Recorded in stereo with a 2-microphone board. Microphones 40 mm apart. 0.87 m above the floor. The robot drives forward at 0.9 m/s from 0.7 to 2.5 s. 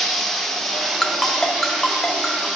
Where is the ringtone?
15° left (ahead or behind), 0.6 m; by 2.5 s 5° left (ahead or behind), 1.9 m.